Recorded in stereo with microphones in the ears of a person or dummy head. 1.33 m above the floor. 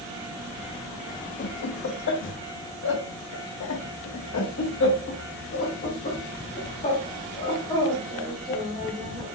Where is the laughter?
55° left (ahead or behind), 1.9 m; by 9.3 s 25° left (ahead or behind), 3.5 m.